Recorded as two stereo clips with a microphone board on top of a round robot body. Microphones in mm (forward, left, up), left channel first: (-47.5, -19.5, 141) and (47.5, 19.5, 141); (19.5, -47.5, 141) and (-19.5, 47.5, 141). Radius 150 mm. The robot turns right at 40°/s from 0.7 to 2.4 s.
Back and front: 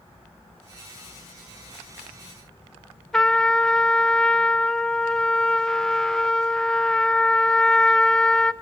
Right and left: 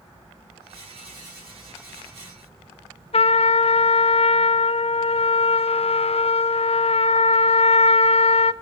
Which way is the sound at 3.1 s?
75° right.